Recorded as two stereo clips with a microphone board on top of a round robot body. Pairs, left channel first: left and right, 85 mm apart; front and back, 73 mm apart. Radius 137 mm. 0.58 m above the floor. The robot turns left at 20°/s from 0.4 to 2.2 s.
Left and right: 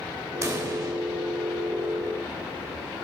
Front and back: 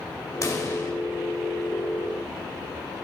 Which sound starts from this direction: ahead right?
A pop, at 0.4 s.